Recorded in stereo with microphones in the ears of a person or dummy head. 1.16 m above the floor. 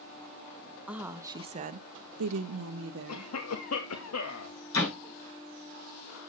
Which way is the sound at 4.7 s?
85° left.